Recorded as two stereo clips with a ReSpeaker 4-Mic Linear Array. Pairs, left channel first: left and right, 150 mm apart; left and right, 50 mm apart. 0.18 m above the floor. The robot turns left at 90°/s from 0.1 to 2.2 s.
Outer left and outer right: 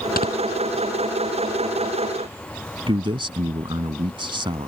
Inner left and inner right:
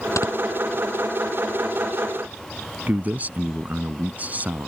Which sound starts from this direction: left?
Snoring, at 0.2 s.